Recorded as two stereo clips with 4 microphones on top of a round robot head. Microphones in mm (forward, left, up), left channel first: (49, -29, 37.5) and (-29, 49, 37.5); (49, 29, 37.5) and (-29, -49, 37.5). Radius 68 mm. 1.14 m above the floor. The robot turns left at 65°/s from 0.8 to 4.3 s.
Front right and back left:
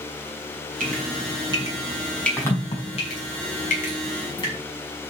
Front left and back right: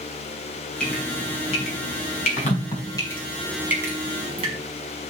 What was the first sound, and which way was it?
Dripping, 130° left.